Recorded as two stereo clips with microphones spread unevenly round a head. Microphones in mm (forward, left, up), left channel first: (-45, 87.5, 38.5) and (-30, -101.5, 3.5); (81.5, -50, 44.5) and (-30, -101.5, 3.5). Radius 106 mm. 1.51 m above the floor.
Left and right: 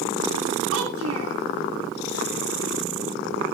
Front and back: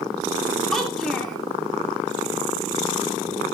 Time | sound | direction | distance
0.7 | a child speaking | 60° right | 2.5 m